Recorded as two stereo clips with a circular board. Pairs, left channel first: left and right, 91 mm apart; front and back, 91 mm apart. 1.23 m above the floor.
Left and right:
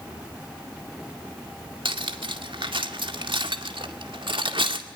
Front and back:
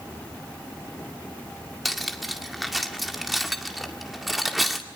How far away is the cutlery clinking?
About 2.0 m.